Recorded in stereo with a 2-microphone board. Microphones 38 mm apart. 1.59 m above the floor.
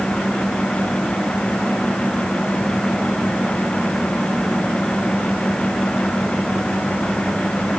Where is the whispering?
I don't hear whispering.